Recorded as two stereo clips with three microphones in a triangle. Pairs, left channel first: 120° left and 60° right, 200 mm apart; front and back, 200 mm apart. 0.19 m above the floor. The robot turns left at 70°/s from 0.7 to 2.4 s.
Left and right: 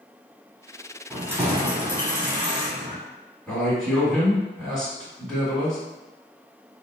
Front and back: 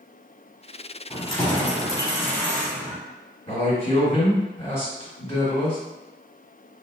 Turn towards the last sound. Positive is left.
turn(degrees=35)